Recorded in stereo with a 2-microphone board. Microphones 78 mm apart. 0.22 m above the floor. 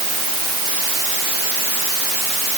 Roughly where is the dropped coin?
I don't hear a dropped coin.